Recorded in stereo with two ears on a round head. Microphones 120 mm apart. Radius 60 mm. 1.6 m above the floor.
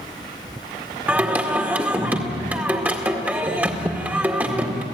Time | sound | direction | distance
1.1 | singing | 15° right (ahead or behind) | 1.9 m